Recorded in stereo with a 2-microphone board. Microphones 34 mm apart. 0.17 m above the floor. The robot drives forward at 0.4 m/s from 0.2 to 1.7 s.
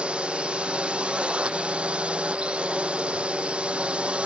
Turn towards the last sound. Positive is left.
turn(degrees=-35)  # may be behind; listen again after turning